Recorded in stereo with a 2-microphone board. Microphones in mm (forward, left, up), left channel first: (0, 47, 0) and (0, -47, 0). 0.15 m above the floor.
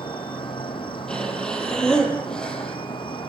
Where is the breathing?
5° left (ahead or behind), 4 m.